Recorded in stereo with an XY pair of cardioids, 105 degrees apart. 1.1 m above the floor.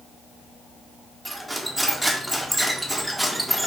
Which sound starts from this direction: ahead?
Cutlery clinking, at 1.2 s.